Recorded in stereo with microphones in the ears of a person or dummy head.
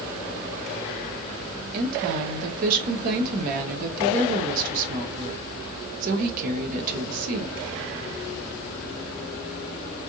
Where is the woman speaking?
50° right (ahead or behind), 0.7 m.